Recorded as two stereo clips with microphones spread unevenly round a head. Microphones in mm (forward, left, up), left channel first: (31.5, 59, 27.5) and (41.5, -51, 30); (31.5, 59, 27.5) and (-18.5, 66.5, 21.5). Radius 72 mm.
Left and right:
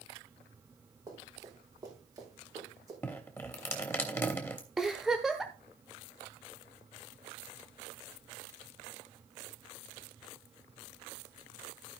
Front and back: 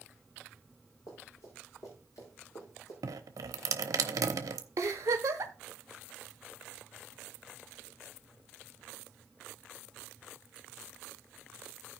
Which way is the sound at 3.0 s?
170° left.